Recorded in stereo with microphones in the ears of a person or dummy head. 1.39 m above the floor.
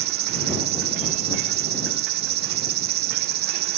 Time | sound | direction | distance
0.0 | an insect | 55° right (ahead or behind) | ?